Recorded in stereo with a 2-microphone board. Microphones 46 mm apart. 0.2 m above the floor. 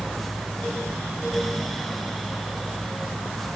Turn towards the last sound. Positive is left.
No sound to turn to.